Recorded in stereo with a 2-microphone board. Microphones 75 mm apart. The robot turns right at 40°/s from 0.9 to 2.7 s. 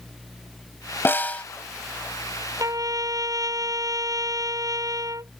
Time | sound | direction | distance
1.1 | a snare drum | 30° left (ahead or behind) | ?
2.6 | a trumpet | 50° right (ahead or behind) | ?